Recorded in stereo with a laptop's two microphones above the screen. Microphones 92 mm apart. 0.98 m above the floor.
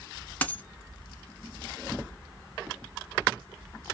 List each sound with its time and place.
0.4 s a dropped coin: 20° left (ahead or behind), 0.9 m